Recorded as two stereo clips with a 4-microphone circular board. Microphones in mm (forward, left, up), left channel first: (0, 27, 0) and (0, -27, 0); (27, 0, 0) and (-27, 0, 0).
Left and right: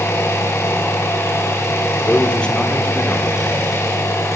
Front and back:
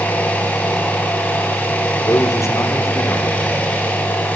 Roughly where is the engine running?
Ahead left.